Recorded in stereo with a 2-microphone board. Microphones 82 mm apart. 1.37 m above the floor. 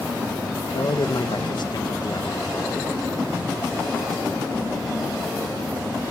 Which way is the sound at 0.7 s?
65° left (ahead or behind).